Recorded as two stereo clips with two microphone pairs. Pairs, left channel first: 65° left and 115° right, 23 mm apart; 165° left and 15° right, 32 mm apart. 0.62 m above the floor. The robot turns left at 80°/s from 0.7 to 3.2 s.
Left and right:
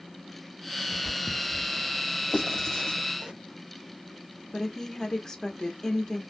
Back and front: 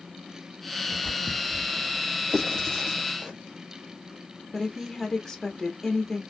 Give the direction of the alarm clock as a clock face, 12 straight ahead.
No alarm clock in this recording.